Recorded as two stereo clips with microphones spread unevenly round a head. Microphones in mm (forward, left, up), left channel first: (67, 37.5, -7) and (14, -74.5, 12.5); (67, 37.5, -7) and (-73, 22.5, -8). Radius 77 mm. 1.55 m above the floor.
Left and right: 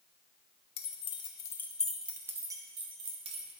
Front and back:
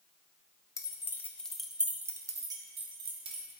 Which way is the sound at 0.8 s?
60° left.